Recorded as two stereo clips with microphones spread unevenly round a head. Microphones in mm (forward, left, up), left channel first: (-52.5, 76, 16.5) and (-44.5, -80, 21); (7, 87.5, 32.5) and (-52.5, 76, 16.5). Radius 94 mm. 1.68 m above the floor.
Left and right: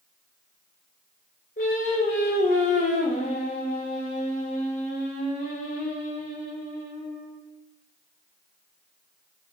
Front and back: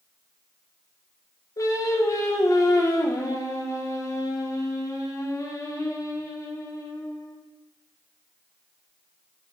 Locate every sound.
1.6 s singing: 40° left, 0.6 m